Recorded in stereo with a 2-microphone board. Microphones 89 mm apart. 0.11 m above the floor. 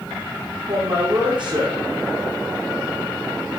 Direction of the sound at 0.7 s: 60° right (ahead or behind).